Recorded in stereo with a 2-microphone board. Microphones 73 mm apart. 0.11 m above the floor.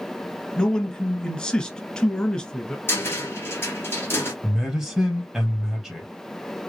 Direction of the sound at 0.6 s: 10° left (ahead or behind).